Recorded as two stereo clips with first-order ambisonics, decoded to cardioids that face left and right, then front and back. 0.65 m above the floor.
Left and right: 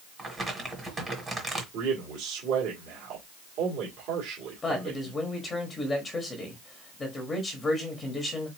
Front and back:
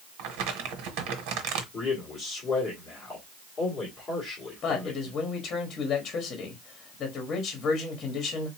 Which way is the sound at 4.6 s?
25° left.